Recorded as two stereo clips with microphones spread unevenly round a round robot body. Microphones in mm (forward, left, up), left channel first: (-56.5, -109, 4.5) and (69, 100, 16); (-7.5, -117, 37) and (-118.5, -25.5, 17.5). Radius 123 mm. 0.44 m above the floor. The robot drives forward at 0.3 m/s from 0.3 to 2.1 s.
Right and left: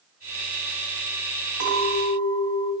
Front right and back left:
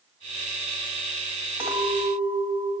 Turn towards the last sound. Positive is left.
turn(degrees=-145)